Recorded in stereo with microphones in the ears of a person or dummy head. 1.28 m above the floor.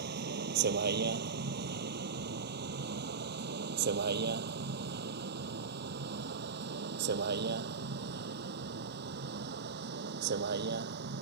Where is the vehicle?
65° right (ahead or behind).